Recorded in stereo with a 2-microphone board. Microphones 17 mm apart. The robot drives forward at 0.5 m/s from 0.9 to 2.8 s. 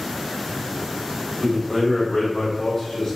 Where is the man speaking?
15° left (ahead or behind), 1.4 m; by 3.2 s 10° left (ahead or behind), 2 m.